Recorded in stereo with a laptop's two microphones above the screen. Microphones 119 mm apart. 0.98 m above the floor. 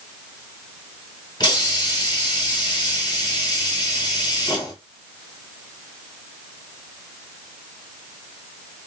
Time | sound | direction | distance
1.4 | a hiss | 35° left (ahead or behind) | 1.4 m